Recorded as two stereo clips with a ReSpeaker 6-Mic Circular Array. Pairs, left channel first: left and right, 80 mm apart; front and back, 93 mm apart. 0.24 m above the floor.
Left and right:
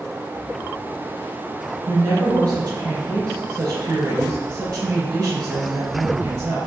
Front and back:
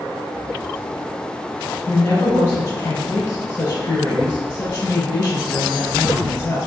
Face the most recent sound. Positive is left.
turn(degrees=-45)